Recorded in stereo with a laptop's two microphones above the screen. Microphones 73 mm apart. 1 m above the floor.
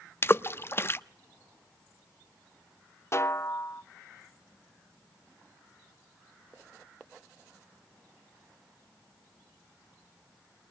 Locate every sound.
0.2 s a splash: 35° left (ahead or behind), 0.7 m
3.1 s a snare drum: 40° left (ahead or behind), 0.6 m